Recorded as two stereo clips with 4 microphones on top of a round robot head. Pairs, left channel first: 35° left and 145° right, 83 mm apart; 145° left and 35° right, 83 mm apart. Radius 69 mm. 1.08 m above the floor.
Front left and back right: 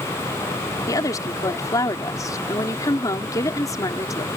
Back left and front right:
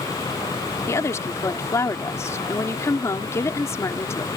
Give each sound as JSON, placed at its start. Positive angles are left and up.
{"t": 0.9, "sound": "a woman speaking", "azimuth_deg": 85}